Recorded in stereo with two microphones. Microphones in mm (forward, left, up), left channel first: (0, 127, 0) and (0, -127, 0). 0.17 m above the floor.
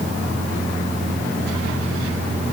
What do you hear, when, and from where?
Only background noise.